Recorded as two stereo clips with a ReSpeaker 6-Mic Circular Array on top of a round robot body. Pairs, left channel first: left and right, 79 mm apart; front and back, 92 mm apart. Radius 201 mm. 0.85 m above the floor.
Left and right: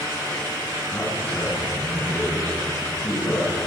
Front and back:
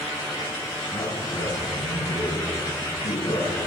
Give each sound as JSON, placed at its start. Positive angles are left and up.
{"t": 0.9, "sound": "a man speaking", "azimuth_deg": 25, "distance_m": 9.0}